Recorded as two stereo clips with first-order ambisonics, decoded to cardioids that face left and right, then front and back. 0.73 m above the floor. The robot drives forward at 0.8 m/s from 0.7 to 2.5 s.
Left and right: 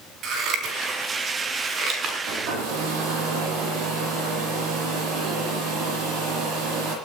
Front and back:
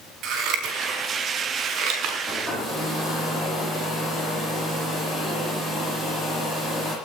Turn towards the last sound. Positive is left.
turn(degrees=-110)